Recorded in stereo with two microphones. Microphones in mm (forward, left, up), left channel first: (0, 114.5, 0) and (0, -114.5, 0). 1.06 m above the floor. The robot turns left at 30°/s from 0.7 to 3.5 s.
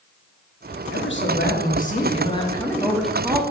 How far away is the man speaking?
About 1.3 m.